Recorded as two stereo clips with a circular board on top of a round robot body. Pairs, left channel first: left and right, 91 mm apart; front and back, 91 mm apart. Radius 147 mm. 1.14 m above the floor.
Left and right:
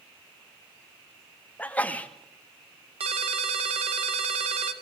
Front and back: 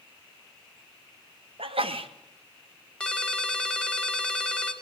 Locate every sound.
1.6 s a sneeze: 165° left, 2.5 m
3.0 s a ringtone: 80° right, 2.5 m